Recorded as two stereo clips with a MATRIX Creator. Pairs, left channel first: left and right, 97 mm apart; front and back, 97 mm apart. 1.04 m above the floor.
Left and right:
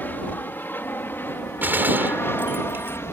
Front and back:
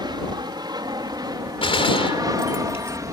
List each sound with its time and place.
0.0 s an aircraft: 155° left; by 3.1 s 145° left
1.6 s a gunshot: 20° right